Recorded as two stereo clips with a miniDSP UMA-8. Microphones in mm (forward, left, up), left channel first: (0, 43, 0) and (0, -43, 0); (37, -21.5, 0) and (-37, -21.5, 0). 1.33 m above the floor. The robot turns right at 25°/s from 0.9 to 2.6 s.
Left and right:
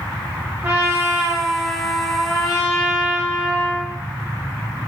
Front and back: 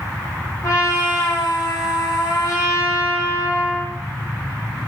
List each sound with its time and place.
0.6 s a trumpet: 25° right, 1.3 m; by 3.9 s 20° left, 1.3 m